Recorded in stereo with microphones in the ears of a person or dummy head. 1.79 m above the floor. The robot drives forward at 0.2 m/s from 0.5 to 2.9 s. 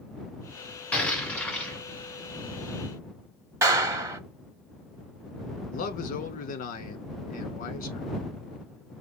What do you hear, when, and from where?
0.9 s an explosion: 5° left (ahead or behind), 1.5 m
3.6 s a clap: 10° right (ahead or behind), 0.6 m
5.7 s a man speaking: 45° left (ahead or behind), 0.9 m